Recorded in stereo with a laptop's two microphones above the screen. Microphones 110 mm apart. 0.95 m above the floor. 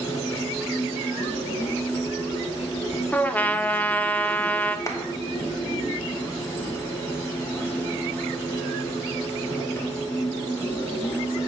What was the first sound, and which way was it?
A machine running, 20° left (ahead or behind).